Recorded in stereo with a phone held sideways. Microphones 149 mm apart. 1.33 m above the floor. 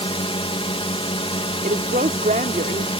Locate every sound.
0.0 s a drone: 40° left (ahead or behind)
1.6 s a woman speaking: 70° right (ahead or behind)